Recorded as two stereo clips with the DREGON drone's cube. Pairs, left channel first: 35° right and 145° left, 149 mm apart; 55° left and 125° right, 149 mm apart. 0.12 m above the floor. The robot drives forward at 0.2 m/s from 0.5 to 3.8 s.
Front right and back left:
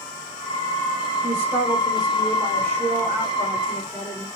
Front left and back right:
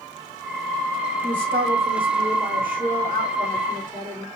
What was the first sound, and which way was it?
A man speaking, 145° right.